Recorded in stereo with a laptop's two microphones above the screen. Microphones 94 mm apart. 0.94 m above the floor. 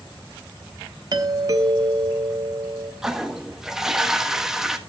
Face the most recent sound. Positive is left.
turn(degrees=-5)  # may be behind; listen again after turning